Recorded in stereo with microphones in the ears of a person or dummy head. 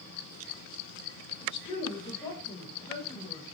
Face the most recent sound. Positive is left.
turn(degrees=15)  # may be behind; listen again after turning